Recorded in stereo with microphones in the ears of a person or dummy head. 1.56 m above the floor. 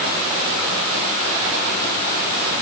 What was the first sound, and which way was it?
Only background noise.